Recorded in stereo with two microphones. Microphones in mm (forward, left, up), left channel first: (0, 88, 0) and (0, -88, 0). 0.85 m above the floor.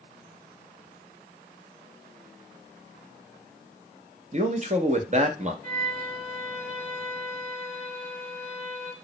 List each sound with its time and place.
4.3 s a man speaking: 40° right (ahead or behind), 0.6 m
5.6 s a violin: 55° right (ahead or behind), 1.2 m